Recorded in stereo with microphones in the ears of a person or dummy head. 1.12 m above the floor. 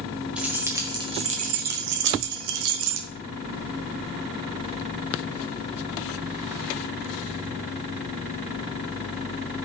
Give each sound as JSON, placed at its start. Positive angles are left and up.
{"t": 0.4, "sound": "keys jangling", "side_deg": -5, "distance_m": 1.4}